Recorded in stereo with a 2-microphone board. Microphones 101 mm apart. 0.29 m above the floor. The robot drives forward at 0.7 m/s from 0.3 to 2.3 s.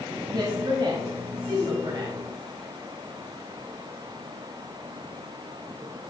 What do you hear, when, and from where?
0.3 s a woman speaking: 40° right (ahead or behind), 1.7 m; by 2.2 s 45° right (ahead or behind), 1.6 m